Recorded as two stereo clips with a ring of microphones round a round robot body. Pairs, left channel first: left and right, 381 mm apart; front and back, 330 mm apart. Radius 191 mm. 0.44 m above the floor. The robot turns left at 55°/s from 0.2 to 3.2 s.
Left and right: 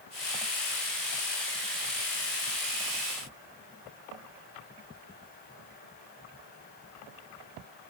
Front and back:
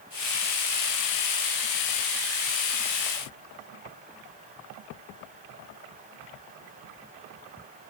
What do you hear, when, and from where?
Only background noise.